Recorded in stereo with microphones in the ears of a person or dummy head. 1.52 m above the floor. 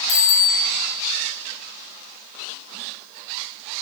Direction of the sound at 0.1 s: 85° left.